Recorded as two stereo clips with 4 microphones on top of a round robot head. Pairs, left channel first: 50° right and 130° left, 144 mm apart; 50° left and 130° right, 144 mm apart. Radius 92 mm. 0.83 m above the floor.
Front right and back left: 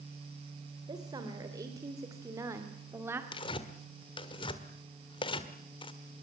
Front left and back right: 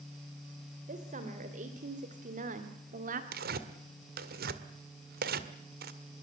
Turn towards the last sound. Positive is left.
turn(degrees=-110)